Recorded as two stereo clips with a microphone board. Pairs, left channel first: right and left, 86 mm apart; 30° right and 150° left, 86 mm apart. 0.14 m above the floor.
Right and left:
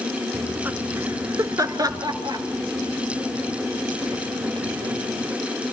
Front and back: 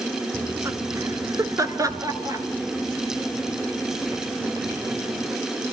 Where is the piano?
No piano in this recording.